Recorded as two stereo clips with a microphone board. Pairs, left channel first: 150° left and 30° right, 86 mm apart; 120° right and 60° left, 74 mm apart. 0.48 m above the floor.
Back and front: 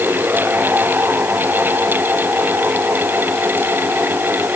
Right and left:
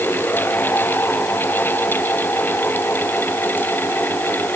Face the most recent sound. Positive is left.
No sound to turn to.